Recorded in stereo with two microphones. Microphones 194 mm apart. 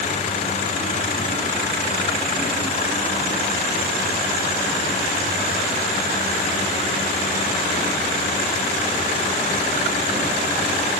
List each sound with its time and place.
Only background noise.